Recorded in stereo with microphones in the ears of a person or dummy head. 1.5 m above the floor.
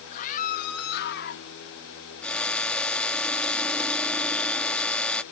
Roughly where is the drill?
Centre.